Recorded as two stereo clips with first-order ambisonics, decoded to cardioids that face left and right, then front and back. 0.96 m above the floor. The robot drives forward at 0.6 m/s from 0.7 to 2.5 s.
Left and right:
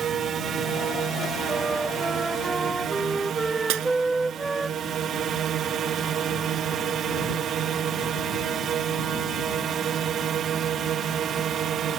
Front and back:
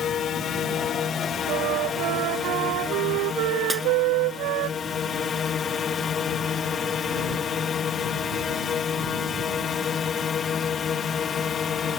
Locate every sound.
0.0 s a drone: 50° right; by 12.0 s 55° right
1.5 s a flute: 165° right; by 4.7 s 170° right
3.7 s breaking glass: 95° right